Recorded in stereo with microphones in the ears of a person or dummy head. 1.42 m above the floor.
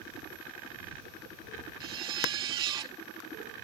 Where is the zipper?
25° right (ahead or behind).